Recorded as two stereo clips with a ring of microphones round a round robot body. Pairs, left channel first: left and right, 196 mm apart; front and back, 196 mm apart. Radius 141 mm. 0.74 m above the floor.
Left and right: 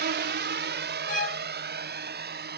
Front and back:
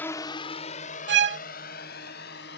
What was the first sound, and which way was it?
A drone, 80° right.